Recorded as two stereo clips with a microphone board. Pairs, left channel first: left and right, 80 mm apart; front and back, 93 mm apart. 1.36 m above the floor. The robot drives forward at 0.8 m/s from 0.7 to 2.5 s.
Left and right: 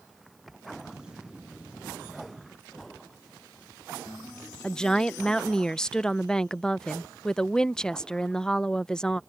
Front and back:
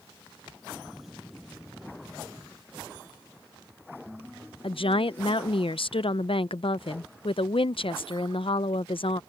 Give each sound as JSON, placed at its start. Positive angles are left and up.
{"t": 4.6, "sound": "a woman speaking", "azimuth_deg": 10}